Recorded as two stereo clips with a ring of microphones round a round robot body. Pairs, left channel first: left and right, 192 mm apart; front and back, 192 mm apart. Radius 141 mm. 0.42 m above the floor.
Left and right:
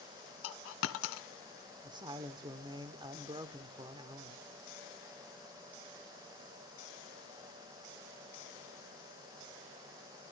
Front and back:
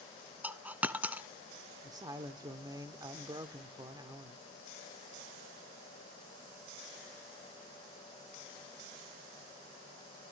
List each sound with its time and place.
0.4 s a dropped coin: 100° left, 1.2 m
1.8 s a woman speaking: 130° right, 0.9 m